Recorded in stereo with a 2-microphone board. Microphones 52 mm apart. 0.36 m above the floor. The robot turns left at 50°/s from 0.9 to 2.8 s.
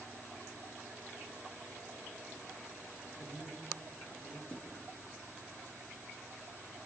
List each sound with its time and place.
3.0 s a man speaking: 80° left, 7 m
4.5 s a thud: 20° left (ahead or behind), 5 m